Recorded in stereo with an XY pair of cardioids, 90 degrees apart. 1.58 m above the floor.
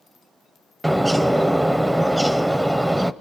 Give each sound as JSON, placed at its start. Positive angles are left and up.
{"t": 0.8, "sound": "a bird", "azimuth_deg": -10, "distance_m": 0.7}